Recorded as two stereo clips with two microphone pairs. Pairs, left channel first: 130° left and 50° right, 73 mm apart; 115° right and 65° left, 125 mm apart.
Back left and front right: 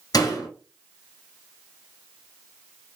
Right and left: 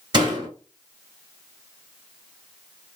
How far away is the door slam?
About 1.8 m.